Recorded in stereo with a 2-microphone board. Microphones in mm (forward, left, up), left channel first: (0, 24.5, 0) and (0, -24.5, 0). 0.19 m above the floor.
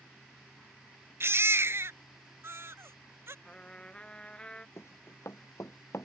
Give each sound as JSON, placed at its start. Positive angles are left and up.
{"t": 1.2, "sound": "a baby crying", "side_deg": -60}
{"t": 3.5, "sound": "a trumpet", "side_deg": 20}
{"t": 4.8, "sound": "running footsteps", "side_deg": 70}